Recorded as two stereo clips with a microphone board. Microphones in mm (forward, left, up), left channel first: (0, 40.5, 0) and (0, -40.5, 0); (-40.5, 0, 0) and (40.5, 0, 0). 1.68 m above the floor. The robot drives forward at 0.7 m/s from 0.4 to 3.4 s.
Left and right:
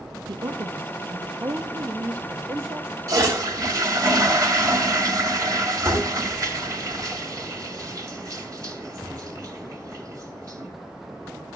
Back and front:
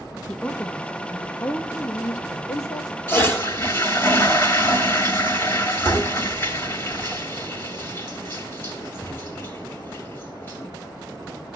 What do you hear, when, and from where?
0.3 s a woman speaking: 105° right, 1.6 m; by 2.9 s 145° right, 2.5 m
3.1 s a toilet flushing: 125° right, 2.5 m; by 10.7 s 130° right, 2.5 m